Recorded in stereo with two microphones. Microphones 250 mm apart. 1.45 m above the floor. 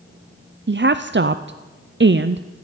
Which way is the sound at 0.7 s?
50° right (ahead or behind).